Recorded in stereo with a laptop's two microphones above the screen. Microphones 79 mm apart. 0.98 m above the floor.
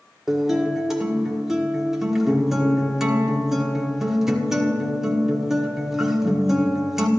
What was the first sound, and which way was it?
A guitar, 5° right (ahead or behind).